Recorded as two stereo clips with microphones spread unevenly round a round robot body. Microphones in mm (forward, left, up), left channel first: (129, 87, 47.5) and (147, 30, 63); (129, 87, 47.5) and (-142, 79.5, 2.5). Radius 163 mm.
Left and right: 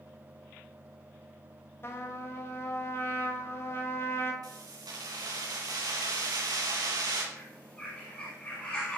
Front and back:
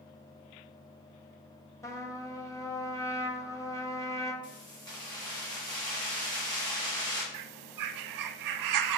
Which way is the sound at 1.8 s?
85° left.